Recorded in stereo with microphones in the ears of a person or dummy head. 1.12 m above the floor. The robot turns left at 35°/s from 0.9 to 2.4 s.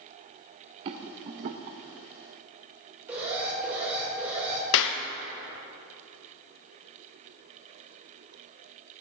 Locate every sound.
0.8 s a rattle: 25° right (ahead or behind), 0.5 m; by 1.8 s 30° right (ahead or behind), 0.5 m
3.1 s an alarm: 10° right (ahead or behind), 2.5 m
4.7 s a clap: 65° left (ahead or behind), 0.6 m